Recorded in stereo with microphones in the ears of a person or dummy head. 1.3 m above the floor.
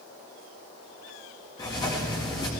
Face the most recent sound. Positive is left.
turn(degrees=20)  # may be behind; listen again after turning